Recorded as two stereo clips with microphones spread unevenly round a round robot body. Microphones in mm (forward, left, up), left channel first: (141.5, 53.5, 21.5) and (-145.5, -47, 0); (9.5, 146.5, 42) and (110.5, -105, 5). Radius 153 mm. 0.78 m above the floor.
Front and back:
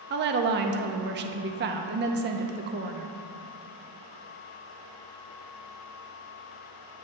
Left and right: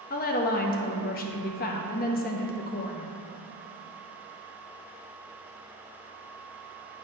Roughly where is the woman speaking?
Behind.